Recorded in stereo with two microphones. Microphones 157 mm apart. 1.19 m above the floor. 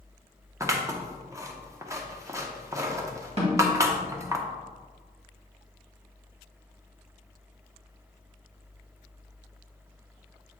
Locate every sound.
0.6 s scissors: 20° right (ahead or behind), 0.7 m
3.4 s a snare drum: 45° right (ahead or behind), 2 m